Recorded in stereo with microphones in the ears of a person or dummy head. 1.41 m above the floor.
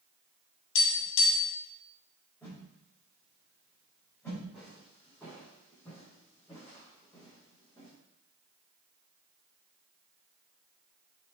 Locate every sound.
0.8 s tapping: 75° left (ahead or behind), 2.5 m
2.4 s a whoosh: 10° left (ahead or behind), 4 m
4.5 s footsteps: centre (ahead or behind), 3 m; by 7.9 s 20° left (ahead or behind), 4.5 m